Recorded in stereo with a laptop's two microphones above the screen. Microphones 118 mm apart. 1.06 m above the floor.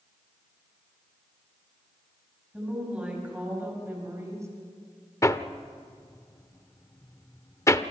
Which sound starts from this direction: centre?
A woman speaking, at 2.5 s.